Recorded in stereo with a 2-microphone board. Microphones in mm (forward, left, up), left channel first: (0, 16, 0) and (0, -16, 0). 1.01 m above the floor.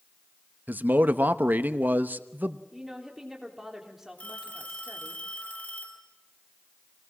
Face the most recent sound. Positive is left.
turn(degrees=50)  # may be behind; listen again after turning